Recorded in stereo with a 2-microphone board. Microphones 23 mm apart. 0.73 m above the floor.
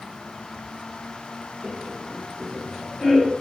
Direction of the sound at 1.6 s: 55° right (ahead or behind).